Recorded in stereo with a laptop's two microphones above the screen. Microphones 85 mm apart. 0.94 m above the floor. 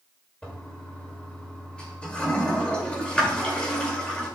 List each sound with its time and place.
0.4 s a toilet flushing: 15° left (ahead or behind), 2 m